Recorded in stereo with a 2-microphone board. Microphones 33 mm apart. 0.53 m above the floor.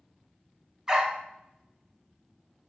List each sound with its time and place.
0.9 s a dog barking: 20° right (ahead or behind), 1.6 m